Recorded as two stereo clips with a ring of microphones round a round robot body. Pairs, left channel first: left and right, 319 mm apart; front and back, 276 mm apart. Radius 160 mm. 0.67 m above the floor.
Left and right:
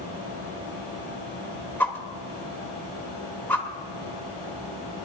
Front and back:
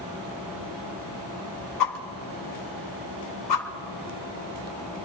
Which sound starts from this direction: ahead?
A whoosh, at 1.8 s.